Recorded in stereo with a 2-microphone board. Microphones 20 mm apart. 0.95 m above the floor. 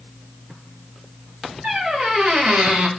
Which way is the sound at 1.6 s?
65° right (ahead or behind).